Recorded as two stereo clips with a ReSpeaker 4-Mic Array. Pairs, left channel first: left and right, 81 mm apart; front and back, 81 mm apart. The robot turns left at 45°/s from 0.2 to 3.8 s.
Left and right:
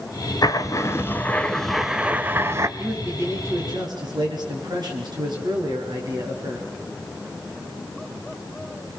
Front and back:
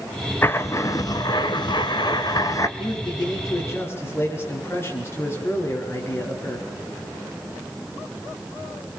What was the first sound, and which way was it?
Writing, 60° left.